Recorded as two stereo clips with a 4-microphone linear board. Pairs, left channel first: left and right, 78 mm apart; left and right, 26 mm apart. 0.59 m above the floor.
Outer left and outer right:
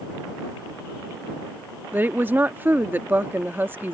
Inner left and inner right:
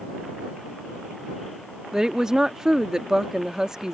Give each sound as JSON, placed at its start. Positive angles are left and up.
{"t": 1.9, "sound": "a woman speaking", "side_deg": -25}